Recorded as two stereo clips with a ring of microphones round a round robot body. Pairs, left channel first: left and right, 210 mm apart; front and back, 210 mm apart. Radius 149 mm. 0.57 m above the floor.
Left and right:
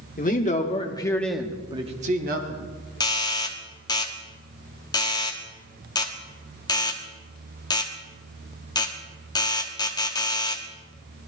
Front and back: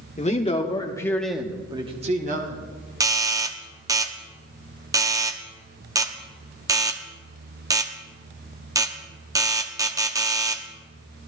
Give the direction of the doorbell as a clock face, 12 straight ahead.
8 o'clock.